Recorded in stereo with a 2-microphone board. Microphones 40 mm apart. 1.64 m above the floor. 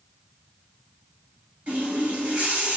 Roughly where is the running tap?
Right.